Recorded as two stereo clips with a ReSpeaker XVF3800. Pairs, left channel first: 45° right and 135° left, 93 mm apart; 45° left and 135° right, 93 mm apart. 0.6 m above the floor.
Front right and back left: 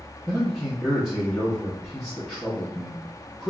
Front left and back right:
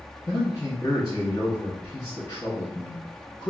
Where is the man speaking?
55° left, 1.0 m.